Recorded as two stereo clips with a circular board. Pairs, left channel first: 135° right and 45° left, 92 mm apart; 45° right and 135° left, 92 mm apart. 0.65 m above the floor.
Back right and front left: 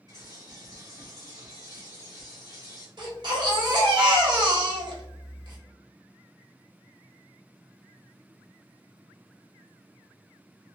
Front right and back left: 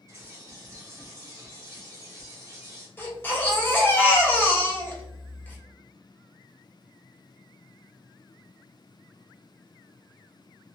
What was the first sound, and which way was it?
A bird, 85° left.